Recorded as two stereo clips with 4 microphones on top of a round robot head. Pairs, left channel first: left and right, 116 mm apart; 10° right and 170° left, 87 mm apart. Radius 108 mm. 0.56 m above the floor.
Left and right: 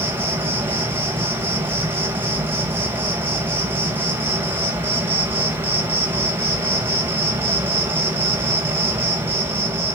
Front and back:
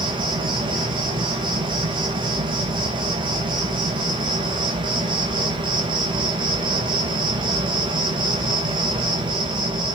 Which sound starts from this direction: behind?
An insect, at 0.0 s.